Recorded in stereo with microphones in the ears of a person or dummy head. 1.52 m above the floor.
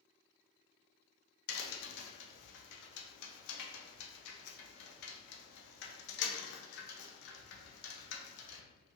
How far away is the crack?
About 0.5 m.